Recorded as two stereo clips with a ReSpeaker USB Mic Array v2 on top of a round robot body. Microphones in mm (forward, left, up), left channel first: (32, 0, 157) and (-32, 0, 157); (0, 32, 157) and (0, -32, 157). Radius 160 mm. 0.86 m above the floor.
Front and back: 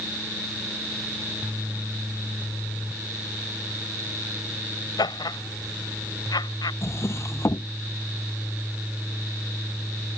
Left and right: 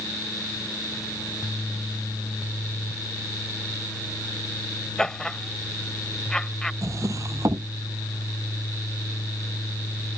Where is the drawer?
50° right.